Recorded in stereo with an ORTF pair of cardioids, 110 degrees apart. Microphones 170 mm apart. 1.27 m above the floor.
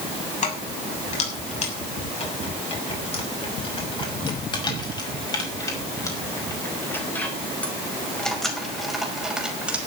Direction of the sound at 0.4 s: 45° left.